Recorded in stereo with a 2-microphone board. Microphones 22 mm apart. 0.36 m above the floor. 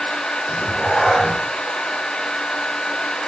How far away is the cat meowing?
About 2.5 m.